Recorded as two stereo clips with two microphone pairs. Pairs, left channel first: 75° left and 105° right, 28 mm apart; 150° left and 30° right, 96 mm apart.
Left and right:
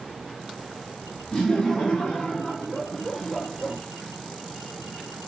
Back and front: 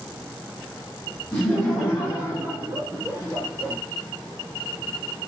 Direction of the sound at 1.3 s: 85° left.